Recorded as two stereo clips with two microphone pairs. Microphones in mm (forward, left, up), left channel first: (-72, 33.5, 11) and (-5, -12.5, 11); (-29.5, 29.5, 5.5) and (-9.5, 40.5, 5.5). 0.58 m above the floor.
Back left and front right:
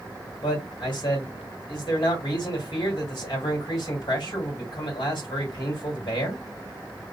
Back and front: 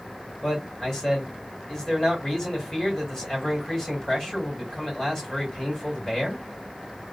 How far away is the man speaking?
About 2.5 m.